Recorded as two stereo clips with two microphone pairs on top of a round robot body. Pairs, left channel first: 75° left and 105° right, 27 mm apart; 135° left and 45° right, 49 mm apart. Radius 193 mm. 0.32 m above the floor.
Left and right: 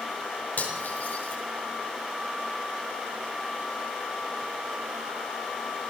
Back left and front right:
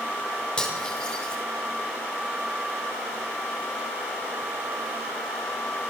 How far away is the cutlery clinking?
About 5 m.